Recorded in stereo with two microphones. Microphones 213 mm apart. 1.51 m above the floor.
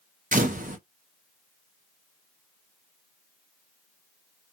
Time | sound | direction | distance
0.3 | a camera shutter | 40° right (ahead or behind) | 0.7 m